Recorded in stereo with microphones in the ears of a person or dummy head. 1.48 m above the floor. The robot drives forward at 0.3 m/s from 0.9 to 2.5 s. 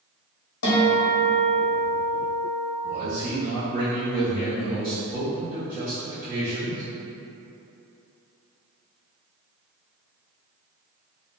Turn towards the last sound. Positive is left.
turn(degrees=-15)  # may be behind; listen again after turning